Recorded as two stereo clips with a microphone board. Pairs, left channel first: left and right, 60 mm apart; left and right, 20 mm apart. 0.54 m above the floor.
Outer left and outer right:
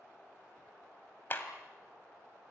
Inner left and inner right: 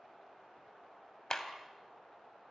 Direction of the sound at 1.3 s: 35° left (ahead or behind).